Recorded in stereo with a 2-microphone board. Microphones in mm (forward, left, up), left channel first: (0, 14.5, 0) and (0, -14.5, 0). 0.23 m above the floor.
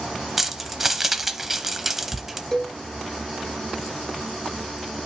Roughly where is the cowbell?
Centre.